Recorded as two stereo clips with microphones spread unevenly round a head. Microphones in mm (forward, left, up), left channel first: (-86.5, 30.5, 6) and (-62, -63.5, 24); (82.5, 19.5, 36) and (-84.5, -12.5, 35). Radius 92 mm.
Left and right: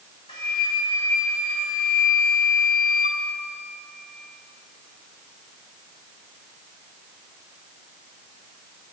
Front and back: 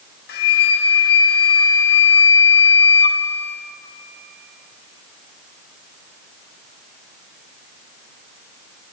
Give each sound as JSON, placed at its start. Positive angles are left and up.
{"t": 0.3, "sound": "a flute", "azimuth_deg": 45, "distance_m": 1.0}